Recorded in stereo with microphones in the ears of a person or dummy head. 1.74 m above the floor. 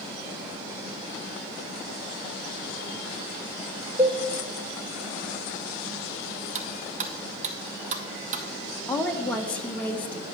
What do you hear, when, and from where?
4.0 s a cowbell: 15° right (ahead or behind), 0.7 m
6.5 s cutlery clinking: 50° right (ahead or behind), 1.1 m
8.9 s a woman speaking: 5° left (ahead or behind), 1.5 m